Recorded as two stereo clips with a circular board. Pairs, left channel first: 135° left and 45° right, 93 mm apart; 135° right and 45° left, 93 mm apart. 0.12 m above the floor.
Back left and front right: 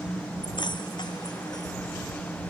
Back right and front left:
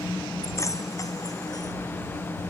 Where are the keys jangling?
165° left; by 1.7 s straight behind.